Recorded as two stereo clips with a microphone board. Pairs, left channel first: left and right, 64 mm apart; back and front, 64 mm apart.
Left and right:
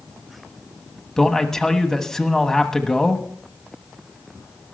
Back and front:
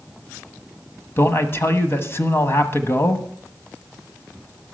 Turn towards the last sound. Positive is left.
turn(degrees=170)